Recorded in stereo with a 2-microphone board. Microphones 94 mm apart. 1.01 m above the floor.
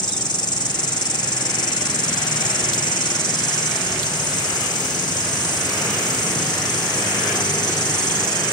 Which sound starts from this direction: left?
An insect, at 0.0 s.